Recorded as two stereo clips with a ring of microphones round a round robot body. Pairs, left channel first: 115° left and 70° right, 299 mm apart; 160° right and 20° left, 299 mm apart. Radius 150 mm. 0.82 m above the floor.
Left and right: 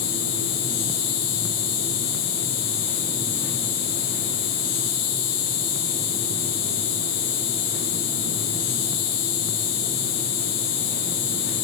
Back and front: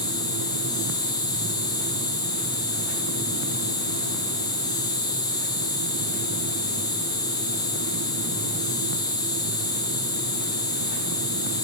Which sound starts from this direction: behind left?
An insect, at 0.0 s.